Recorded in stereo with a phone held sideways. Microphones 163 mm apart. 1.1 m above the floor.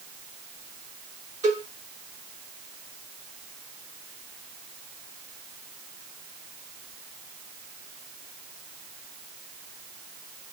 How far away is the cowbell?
About 4.5 m.